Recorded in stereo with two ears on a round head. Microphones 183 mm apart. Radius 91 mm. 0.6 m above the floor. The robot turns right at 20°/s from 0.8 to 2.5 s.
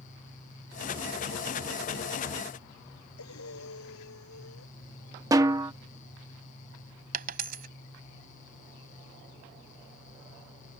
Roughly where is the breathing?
Left.